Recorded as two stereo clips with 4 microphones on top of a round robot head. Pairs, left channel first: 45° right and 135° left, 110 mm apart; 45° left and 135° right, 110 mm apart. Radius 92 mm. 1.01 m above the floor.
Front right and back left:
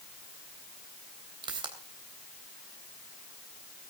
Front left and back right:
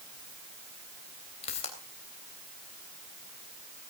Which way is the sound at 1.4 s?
80° left.